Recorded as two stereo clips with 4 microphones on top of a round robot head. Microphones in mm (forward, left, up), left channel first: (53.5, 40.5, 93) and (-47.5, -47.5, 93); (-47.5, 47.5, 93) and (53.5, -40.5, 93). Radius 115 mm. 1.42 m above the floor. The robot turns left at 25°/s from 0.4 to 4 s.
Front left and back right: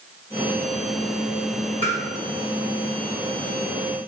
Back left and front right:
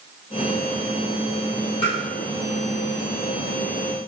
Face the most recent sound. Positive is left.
turn(degrees=35)